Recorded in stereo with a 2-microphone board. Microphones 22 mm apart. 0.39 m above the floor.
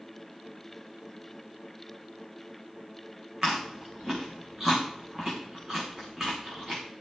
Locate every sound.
3.4 s chewing: 15° right (ahead or behind), 6.5 m